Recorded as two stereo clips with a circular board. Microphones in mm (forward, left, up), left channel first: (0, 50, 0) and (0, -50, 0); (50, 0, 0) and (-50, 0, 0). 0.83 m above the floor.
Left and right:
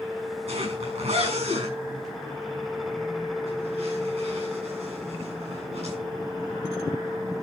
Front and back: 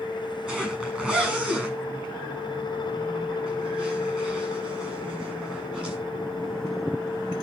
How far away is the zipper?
About 7 m.